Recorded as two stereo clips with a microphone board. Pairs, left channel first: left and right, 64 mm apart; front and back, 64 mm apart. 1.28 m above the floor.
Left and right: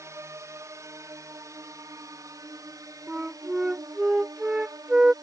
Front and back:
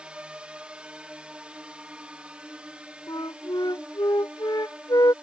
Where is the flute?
15° right.